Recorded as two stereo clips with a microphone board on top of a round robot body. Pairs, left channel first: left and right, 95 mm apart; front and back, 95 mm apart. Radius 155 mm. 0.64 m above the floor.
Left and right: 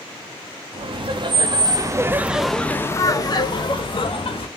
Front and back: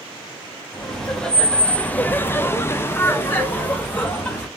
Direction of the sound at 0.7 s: 85° right.